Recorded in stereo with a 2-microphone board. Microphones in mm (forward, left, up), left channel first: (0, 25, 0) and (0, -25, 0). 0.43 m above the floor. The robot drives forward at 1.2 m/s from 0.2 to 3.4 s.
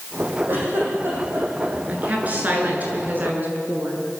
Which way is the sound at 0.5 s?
45° right (ahead or behind).